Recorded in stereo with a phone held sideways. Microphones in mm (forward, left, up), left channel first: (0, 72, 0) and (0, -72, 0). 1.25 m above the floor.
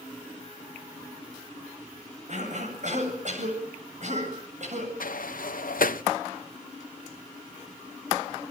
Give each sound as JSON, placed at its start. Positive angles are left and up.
{"t": 2.3, "sound": "a cough", "side_deg": -55, "distance_m": 8.0}
{"t": 5.0, "sound": "a sliding door", "side_deg": 75, "distance_m": 0.6}